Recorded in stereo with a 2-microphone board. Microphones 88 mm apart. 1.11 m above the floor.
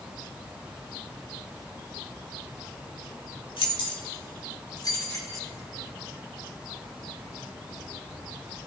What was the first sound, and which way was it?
Keys jangling, 75° left (ahead or behind).